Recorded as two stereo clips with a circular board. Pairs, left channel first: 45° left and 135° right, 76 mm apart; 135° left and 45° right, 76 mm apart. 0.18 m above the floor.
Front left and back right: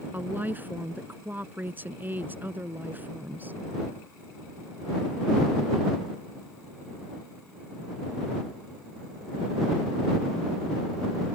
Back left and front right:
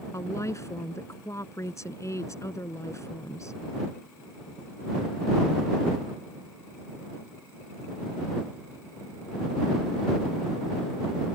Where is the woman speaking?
165° left.